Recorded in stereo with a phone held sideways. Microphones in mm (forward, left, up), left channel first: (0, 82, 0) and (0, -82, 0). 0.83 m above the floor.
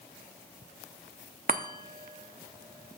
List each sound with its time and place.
1.5 s a chime: 60° right (ahead or behind), 0.8 m